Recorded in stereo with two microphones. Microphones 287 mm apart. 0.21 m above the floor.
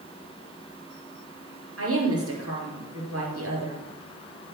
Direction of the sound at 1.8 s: 50° right (ahead or behind).